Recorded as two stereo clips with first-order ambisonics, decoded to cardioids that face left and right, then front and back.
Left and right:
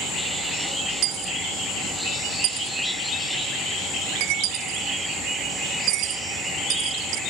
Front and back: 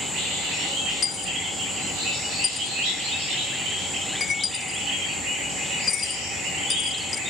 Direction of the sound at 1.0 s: 70° right.